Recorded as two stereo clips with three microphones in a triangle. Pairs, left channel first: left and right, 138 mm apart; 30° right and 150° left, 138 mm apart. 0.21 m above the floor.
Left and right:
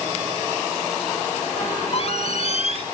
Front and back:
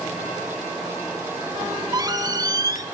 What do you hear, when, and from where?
1.6 s a squeak: 100° left, 0.6 m